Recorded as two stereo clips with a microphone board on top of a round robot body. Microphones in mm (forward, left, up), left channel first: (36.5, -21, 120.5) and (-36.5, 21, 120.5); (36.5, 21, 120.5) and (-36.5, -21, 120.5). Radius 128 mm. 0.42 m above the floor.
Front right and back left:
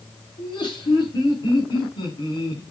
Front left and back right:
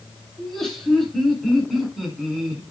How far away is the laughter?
About 8 m.